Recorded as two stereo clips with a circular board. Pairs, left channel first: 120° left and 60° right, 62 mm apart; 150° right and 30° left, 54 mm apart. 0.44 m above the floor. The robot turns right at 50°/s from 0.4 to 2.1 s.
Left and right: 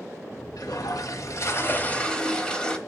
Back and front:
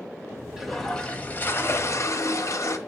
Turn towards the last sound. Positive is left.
turn(degrees=-165)